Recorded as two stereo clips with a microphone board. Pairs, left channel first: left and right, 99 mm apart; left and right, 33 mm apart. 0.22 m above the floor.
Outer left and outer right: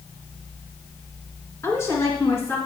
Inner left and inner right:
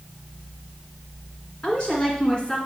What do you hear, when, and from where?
1.6 s a woman speaking: 30° left (ahead or behind), 2.5 m